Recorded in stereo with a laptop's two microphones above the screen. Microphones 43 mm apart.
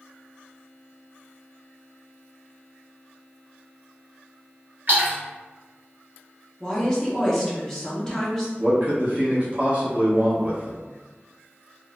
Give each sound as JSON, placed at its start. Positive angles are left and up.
{"t": 4.9, "sound": "a splash", "side_deg": -45, "distance_m": 1.0}
{"t": 6.6, "sound": "a woman speaking", "side_deg": 10, "distance_m": 1.1}
{"t": 8.6, "sound": "a man speaking", "side_deg": -35, "distance_m": 0.9}